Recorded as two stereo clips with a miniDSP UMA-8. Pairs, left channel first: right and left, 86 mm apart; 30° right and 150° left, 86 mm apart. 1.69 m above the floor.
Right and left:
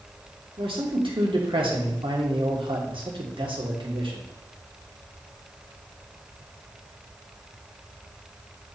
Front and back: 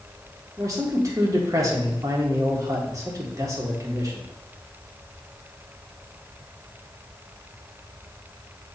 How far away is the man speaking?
About 1.6 m.